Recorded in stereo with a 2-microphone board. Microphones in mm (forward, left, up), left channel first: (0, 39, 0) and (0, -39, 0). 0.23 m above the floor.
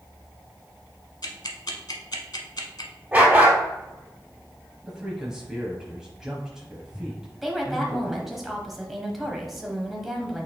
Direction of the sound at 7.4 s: 5° right (ahead or behind).